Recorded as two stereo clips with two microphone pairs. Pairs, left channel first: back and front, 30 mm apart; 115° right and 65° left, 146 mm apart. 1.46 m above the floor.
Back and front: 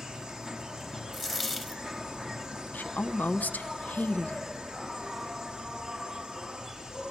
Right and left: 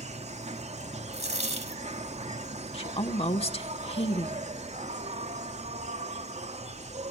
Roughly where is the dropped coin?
Left.